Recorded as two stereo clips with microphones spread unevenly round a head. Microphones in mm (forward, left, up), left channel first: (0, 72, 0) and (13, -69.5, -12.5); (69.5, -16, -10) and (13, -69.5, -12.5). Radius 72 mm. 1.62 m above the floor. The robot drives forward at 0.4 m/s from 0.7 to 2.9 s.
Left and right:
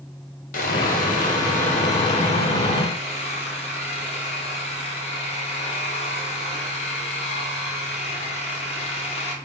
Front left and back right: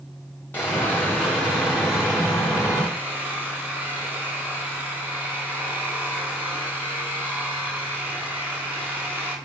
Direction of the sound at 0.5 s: 115° left.